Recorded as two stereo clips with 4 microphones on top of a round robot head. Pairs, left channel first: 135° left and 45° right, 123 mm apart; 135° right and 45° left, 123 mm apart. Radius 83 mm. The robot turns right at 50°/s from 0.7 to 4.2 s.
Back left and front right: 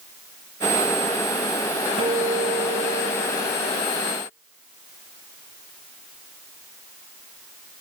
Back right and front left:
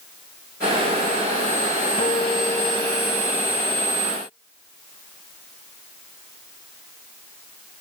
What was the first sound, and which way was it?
A guitar, 90° right.